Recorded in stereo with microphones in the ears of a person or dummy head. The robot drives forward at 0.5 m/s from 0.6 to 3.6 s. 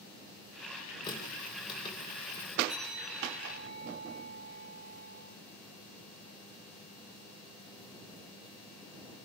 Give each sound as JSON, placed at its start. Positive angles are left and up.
{"t": 1.0, "sound": "a running tap", "side_deg": 25, "distance_m": 5.0}
{"t": 2.7, "sound": "a bell", "side_deg": -5, "distance_m": 9.5}